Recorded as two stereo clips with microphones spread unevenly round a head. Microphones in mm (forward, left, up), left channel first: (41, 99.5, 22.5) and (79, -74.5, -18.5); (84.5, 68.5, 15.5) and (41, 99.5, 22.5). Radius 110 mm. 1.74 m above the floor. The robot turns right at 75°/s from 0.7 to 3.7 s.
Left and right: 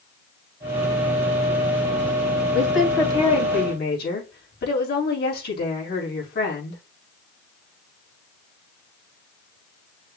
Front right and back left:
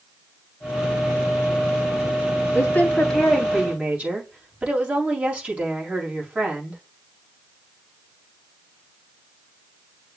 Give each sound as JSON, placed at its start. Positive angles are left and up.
{"t": 2.5, "sound": "a woman speaking", "azimuth_deg": -5, "distance_m": 3.0}